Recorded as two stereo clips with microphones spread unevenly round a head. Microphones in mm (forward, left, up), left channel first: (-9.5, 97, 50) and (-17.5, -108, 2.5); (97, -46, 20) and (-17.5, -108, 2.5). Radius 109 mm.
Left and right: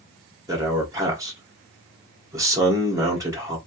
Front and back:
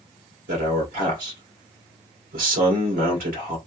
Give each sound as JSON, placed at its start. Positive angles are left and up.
{"t": 0.5, "sound": "a man speaking", "azimuth_deg": -165, "distance_m": 1.5}